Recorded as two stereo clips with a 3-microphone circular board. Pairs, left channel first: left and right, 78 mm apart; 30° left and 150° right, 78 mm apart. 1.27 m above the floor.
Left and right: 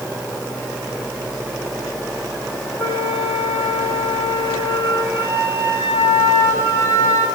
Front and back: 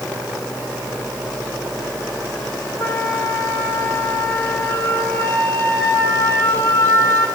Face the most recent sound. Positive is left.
turn(degrees=-40)